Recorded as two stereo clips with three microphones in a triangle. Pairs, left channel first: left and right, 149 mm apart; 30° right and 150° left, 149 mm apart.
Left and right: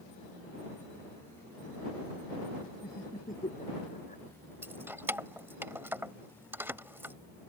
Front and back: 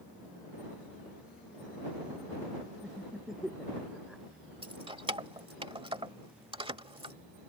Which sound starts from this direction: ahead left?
Laughter, at 2.8 s.